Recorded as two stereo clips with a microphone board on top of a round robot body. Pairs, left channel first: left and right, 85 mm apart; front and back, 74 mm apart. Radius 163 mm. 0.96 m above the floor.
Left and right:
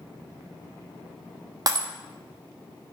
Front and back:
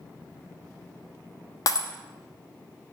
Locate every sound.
1.7 s breaking glass: 40° right, 1.1 m